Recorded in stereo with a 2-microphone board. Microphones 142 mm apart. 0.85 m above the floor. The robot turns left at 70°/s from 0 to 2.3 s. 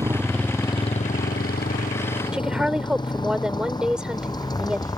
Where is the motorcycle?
25° right (ahead or behind); by 5.0 s 25° left (ahead or behind).